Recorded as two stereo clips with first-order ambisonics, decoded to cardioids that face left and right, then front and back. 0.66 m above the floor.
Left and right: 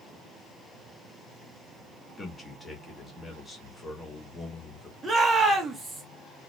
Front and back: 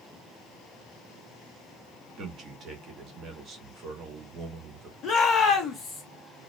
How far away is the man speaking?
About 1.0 m.